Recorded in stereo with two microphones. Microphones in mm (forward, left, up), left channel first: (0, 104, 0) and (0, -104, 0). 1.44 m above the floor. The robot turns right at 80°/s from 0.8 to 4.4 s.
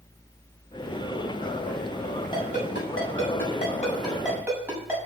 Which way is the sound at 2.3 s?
20° left (ahead or behind).